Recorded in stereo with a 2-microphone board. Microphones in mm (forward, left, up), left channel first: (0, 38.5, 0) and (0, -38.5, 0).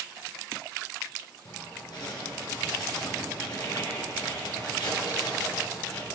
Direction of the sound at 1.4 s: 70° left (ahead or behind).